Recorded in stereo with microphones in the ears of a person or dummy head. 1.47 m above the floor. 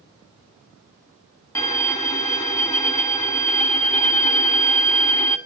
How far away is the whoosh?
No whoosh in this recording.